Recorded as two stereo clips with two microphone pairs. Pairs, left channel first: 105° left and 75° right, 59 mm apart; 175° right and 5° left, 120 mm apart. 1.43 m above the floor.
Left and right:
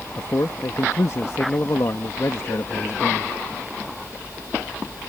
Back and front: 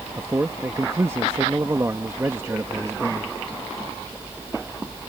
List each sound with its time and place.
0.2 s a man speaking: 70° left